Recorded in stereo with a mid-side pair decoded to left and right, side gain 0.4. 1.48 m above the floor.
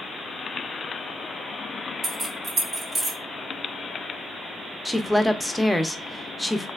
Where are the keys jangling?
60° right, 1.7 m; by 3.2 s 30° right, 1.3 m.